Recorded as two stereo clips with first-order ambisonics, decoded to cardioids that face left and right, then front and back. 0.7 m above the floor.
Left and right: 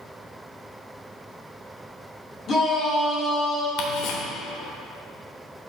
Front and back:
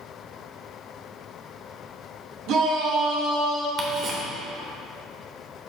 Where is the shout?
150° left, 1.9 m; by 3.7 s 170° left, 3 m.